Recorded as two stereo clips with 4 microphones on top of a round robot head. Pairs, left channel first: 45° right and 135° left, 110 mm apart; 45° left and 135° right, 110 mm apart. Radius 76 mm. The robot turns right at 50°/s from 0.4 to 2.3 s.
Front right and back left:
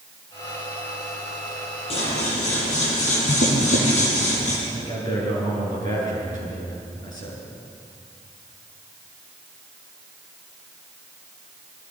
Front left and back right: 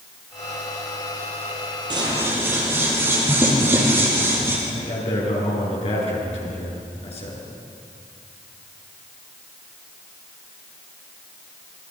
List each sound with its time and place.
1.9 s scissors: 80° right, 6.5 m; by 4.6 s 60° right, 6.5 m
4.7 s a man speaking: 10° left, 8.5 m